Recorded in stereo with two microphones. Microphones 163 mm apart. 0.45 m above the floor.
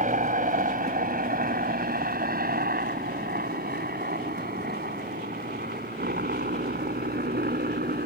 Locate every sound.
0.0 s a helicopter: 55° right (ahead or behind); by 8.1 s 70° right (ahead or behind)